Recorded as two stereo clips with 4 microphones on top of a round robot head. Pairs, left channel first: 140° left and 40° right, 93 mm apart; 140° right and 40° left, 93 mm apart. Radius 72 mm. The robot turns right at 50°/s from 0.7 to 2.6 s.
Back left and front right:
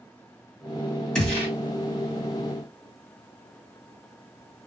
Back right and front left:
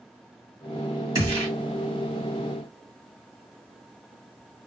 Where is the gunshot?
65° left, 1.6 m; by 1.5 s 85° left, 1.6 m.